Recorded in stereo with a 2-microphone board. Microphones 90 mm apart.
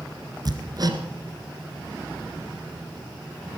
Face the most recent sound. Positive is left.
turn(degrees=-45)  # may be behind; listen again after turning